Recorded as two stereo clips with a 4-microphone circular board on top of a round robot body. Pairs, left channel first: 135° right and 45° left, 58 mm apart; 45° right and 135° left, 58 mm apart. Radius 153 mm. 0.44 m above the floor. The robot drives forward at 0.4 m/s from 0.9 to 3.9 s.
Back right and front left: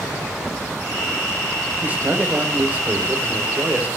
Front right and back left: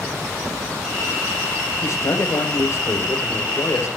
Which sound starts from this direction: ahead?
A man speaking, at 1.8 s.